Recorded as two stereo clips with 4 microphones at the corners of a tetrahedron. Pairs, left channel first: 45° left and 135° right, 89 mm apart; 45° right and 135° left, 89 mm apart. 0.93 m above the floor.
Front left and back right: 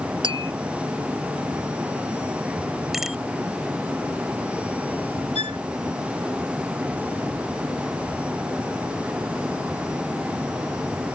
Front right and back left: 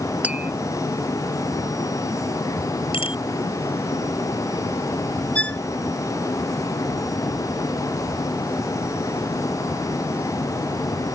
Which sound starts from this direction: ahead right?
A bicycle bell, at 2.9 s.